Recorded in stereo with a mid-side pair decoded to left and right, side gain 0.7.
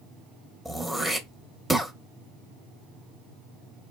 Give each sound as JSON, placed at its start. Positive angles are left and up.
{"t": 0.7, "sound": "throat clearing", "azimuth_deg": 5, "distance_m": 1.0}